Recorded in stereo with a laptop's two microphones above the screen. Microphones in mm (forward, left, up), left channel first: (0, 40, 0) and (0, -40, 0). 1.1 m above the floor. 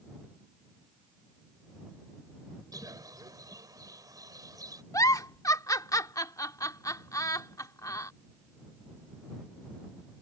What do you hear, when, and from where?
2.7 s a bird: 50° right (ahead or behind)
4.9 s a giggle: 45° left (ahead or behind)